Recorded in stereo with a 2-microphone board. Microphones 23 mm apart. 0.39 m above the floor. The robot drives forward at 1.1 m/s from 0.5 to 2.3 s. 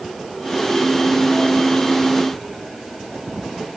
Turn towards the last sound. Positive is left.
No sound to turn to.